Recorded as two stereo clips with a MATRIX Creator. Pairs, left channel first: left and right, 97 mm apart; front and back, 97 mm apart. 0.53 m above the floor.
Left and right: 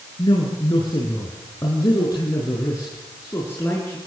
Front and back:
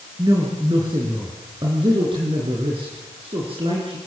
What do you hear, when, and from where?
0.2 s a woman speaking: 135° left, 6.5 m; by 4.0 s 160° left, 6.5 m